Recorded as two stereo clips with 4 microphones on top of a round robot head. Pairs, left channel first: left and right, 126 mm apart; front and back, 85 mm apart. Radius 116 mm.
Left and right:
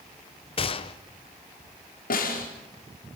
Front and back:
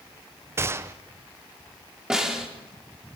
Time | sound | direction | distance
0.6 | a gunshot | 125° left | 0.6 m
2.1 | a snare drum | 95° left | 4.5 m